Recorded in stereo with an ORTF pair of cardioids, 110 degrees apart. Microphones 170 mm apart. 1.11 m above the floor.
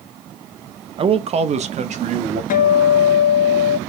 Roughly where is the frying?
No frying in this recording.